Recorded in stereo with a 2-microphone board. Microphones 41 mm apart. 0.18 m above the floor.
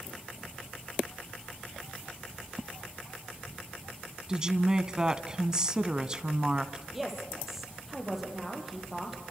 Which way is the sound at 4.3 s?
20° right (ahead or behind).